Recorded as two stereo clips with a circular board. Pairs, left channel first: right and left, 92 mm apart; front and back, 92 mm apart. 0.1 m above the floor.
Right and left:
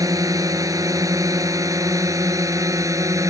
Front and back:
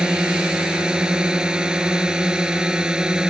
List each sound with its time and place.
0.0 s a drone: 105° left